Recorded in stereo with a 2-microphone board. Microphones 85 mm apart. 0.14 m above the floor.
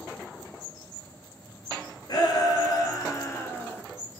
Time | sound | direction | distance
2.1 | a shout | 50° left (ahead or behind) | 1.9 m